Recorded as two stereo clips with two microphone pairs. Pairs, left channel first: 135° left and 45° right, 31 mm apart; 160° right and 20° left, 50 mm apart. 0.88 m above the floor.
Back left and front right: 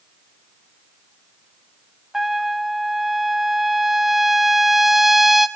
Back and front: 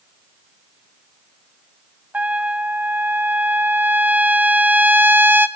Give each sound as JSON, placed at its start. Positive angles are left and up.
{"t": 2.1, "sound": "a trumpet", "azimuth_deg": 30, "distance_m": 0.6}